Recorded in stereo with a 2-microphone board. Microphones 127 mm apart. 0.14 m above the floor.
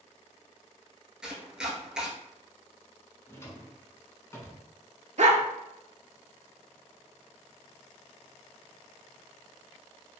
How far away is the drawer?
About 0.5 m.